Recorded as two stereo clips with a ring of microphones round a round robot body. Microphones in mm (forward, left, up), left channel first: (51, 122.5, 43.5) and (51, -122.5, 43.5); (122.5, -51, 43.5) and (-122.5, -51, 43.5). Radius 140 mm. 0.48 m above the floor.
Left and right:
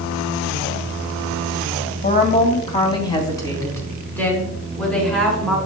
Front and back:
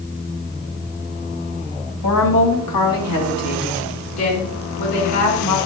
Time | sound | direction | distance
2.0 | a woman speaking | 35° left | 3 m